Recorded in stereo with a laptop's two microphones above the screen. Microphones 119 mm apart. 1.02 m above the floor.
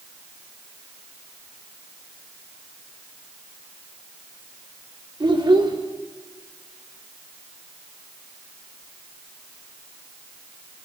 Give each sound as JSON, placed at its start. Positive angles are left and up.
{"t": 5.2, "sound": "a child speaking", "side_deg": -40, "distance_m": 2.0}